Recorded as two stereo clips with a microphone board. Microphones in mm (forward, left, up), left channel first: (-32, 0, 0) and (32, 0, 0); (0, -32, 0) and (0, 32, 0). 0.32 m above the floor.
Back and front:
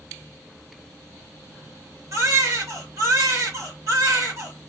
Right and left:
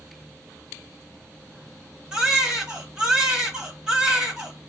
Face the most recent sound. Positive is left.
turn(degrees=15)